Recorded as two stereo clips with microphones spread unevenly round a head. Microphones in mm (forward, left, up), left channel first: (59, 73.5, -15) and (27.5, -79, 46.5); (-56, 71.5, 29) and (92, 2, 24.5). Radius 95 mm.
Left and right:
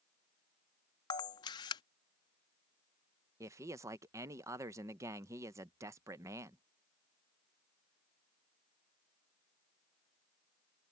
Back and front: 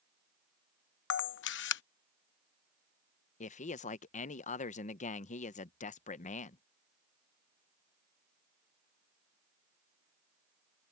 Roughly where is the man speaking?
Behind.